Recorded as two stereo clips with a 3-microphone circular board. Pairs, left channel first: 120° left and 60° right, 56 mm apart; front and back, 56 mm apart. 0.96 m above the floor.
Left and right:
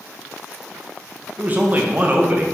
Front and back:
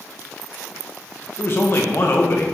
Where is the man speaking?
15° right, 0.6 m.